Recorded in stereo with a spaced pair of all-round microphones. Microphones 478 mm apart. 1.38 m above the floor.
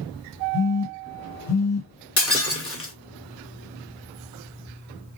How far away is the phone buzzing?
About 1.5 m.